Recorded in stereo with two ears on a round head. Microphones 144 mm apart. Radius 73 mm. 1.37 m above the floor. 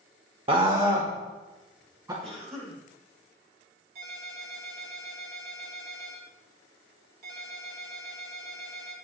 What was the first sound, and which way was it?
A scream, 30° right (ahead or behind).